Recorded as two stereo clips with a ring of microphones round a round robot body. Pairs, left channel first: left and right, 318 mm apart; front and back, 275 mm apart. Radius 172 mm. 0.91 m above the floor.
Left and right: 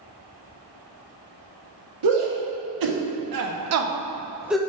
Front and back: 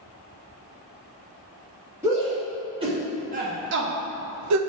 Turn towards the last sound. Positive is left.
turn(degrees=175)